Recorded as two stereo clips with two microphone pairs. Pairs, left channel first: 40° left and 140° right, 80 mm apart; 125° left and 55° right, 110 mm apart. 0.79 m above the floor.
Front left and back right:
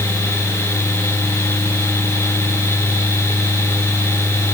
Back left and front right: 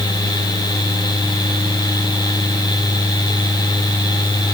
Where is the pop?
I don't hear a pop.